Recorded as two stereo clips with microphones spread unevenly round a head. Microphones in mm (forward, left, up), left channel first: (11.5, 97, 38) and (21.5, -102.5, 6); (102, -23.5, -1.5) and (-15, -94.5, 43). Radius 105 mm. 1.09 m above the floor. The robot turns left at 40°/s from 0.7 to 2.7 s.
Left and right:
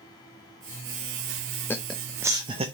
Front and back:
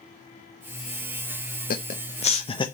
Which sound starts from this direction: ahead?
Laughter, at 1.7 s.